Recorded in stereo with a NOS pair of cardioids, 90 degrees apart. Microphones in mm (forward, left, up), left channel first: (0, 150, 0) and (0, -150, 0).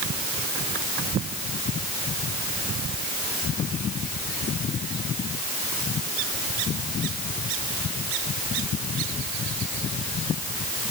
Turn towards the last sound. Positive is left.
No sound to turn to.